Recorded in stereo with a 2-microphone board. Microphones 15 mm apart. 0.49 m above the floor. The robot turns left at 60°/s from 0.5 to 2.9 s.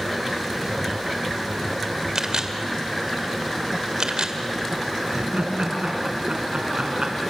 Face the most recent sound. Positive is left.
turn(degrees=-80)